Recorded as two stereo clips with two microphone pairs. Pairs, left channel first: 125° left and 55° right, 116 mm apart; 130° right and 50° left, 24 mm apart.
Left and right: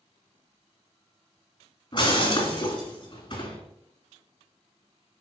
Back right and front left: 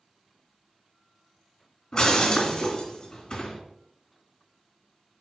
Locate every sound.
1.9 s breaking glass: 170° left, 2.5 m